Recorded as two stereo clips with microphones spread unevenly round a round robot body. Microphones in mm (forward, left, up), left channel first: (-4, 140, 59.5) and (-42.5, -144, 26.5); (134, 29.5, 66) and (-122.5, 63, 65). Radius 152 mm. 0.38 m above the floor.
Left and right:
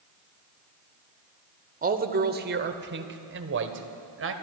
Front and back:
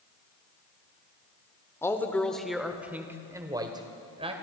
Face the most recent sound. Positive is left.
turn(degrees=-120)